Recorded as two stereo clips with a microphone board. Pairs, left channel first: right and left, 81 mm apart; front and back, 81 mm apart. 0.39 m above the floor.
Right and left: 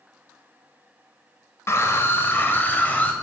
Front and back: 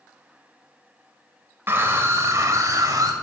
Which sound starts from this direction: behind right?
A scream, at 1.7 s.